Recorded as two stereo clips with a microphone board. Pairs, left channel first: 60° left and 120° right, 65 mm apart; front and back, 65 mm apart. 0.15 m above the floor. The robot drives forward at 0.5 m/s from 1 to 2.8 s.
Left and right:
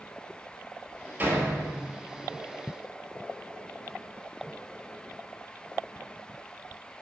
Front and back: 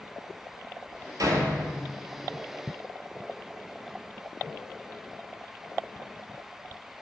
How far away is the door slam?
About 1.8 m.